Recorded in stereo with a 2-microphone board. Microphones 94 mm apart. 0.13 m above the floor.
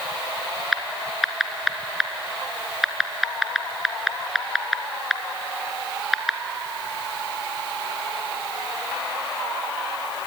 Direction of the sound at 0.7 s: 5° right (ahead or behind).